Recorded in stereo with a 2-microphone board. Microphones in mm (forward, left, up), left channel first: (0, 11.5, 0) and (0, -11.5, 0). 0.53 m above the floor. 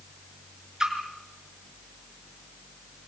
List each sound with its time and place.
0.8 s a splash: 30° right (ahead or behind), 4.5 m